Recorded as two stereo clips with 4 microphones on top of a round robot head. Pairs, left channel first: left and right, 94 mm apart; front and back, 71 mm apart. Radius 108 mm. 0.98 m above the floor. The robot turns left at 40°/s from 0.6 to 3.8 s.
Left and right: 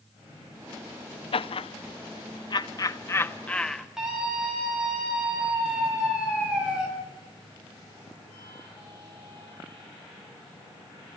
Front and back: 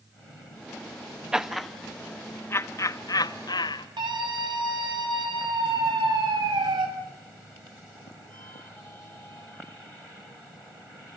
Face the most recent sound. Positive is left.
turn(degrees=-175)